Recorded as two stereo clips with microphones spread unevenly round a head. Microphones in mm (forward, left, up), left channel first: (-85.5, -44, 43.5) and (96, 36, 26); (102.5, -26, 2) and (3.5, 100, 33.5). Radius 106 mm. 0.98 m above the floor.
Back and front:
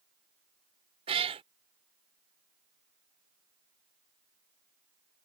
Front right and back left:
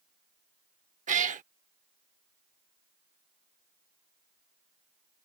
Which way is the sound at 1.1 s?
90° left.